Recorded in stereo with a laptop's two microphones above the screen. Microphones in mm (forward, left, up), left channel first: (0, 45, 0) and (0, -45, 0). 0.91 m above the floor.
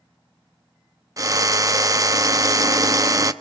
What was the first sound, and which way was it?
A drill, 40° right (ahead or behind).